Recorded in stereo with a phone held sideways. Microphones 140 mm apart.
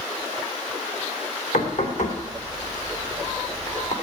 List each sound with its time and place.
1.5 s knocking: 80° left, 3 m